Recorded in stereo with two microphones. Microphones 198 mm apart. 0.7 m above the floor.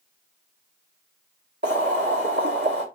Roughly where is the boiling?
Right.